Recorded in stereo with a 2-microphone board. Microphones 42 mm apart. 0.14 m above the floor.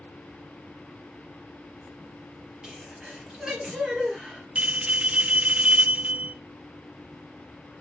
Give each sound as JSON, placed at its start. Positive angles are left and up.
{"t": 2.6, "sound": "a sneeze", "side_deg": -15, "distance_m": 3.0}
{"t": 4.5, "sound": "a bell", "side_deg": -30, "distance_m": 0.5}